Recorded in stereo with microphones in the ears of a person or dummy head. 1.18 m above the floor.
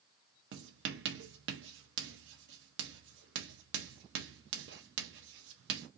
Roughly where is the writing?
Right.